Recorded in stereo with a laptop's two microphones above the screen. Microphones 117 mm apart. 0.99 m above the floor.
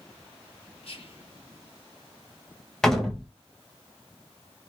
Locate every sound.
0.8 s whispering: 55° left (ahead or behind), 1.3 m
2.8 s a door slam: 5° left (ahead or behind), 0.6 m